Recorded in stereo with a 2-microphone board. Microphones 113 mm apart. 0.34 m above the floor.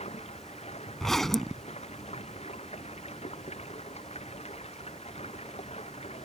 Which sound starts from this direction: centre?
A zipper, at 1.0 s.